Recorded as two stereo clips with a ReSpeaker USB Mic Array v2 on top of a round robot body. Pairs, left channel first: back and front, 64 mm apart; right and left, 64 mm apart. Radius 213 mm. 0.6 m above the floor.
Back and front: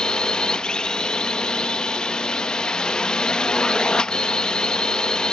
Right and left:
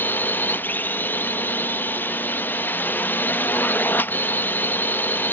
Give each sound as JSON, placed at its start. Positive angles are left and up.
{"t": 0.0, "sound": "a drone", "azimuth_deg": -115}